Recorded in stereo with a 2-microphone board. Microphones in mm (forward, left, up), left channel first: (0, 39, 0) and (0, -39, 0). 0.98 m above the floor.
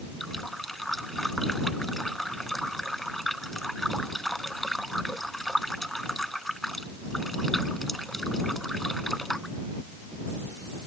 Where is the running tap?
Centre (ahead or behind).